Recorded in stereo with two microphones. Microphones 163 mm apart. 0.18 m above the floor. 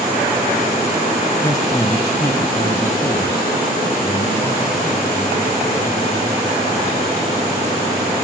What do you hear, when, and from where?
1.4 s a man speaking: 20° left (ahead or behind), 1.4 m; by 7.1 s 25° left (ahead or behind), 5.5 m